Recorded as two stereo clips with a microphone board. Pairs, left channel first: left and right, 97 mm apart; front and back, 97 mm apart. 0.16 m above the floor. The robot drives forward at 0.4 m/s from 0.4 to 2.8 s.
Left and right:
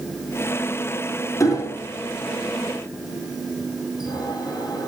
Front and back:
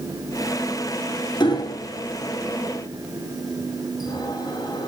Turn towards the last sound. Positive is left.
turn(degrees=45)